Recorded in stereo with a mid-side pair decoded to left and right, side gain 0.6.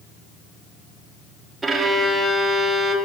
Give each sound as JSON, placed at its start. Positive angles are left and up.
{"t": 1.6, "sound": "a violin", "azimuth_deg": -25, "distance_m": 1.7}